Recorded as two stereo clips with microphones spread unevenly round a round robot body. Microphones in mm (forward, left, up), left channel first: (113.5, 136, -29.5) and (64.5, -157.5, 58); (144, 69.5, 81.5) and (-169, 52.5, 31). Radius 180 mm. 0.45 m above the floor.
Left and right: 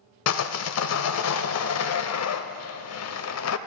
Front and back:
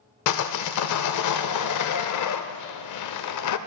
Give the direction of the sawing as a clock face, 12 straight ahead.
11 o'clock.